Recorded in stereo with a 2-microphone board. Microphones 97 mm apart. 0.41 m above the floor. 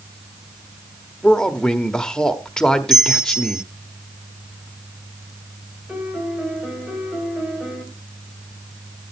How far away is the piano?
About 2 m.